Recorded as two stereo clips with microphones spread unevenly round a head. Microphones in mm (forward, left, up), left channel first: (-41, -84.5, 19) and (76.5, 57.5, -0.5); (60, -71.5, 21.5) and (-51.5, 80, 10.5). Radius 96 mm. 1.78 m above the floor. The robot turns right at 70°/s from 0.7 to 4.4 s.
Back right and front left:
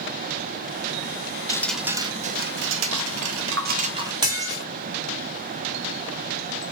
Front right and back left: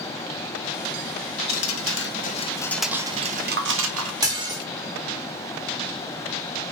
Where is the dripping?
55° right, 0.6 m; by 4.1 s 125° left, 0.6 m.